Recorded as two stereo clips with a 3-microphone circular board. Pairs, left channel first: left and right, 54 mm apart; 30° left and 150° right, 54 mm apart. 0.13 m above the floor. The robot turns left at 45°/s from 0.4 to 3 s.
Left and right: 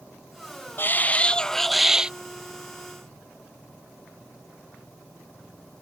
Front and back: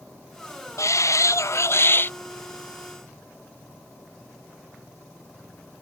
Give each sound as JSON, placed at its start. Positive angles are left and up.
{"t": 0.8, "sound": "a shout", "azimuth_deg": 45}